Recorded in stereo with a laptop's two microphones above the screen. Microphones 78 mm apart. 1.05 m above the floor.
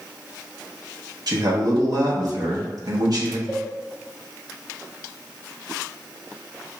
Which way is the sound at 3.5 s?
5° right (ahead or behind).